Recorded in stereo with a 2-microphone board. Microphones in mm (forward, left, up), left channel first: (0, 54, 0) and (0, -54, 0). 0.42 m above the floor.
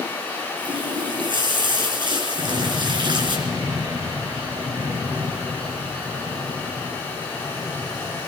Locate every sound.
0.6 s a running tap: 45° right (ahead or behind), 3.5 m
2.4 s an explosion: 35° right (ahead or behind), 6 m